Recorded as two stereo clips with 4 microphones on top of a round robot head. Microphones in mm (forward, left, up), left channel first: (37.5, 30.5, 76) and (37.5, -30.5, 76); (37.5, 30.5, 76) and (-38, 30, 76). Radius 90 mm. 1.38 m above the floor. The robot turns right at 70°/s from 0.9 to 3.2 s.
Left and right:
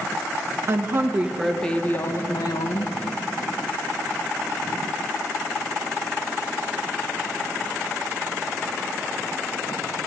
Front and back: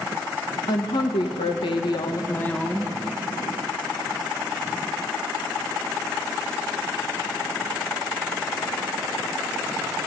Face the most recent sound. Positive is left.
turn(degrees=120)